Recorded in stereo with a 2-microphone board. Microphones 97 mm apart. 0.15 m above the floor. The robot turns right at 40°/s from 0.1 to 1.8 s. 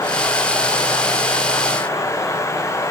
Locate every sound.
Only background noise.